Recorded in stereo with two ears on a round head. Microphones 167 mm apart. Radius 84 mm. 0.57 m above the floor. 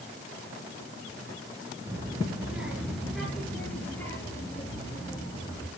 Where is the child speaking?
15° right (ahead or behind), 4 m; by 5.7 s 20° left (ahead or behind), 8 m.